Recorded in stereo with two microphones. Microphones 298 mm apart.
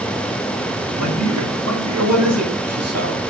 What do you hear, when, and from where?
0.9 s a man speaking: 70° right (ahead or behind), 5 m; by 3.2 s 55° right (ahead or behind), 6 m